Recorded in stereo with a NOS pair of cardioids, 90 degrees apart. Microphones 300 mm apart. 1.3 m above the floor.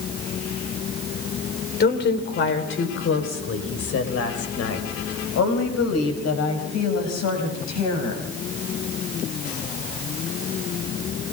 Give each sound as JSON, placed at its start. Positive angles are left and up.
{"t": 1.8, "sound": "a woman speaking", "azimuth_deg": 35, "distance_m": 4.0}